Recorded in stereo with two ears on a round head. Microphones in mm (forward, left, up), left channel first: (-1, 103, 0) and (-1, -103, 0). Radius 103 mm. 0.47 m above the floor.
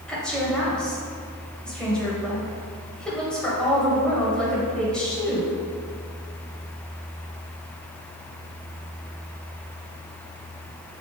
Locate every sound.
0.1 s a woman speaking: 5° left (ahead or behind), 2.0 m